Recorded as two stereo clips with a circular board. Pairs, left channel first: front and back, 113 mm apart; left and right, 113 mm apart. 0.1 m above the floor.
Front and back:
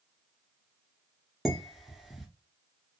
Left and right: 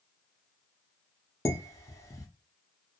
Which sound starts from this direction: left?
Dishes clattering, at 1.4 s.